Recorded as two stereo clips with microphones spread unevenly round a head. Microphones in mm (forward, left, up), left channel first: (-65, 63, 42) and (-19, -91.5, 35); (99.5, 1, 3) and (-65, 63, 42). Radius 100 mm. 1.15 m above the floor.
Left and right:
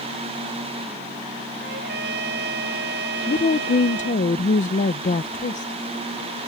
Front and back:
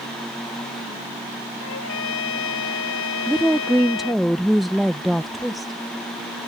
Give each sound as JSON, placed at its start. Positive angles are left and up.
{"t": 1.6, "sound": "a trumpet", "azimuth_deg": -35}
{"t": 3.3, "sound": "a woman speaking", "azimuth_deg": 65}